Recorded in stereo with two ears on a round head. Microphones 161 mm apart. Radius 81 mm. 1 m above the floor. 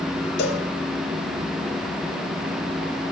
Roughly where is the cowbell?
Left.